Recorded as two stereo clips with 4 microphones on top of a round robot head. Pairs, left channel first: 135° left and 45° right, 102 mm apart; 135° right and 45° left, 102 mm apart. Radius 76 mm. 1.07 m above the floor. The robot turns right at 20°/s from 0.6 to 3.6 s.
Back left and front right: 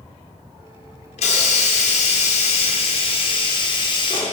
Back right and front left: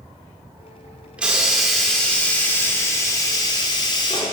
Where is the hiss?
125° left, 2.5 m; by 4.3 s 175° left, 2.5 m.